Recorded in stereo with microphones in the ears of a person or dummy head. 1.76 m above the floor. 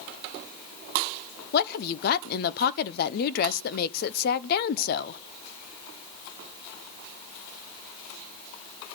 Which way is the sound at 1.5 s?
55° left (ahead or behind).